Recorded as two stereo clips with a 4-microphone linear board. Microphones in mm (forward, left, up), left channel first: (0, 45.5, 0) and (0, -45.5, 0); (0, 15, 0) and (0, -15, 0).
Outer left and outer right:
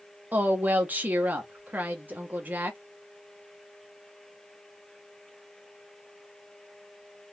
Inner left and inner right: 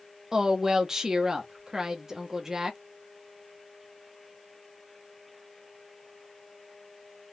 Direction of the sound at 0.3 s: 20° right (ahead or behind).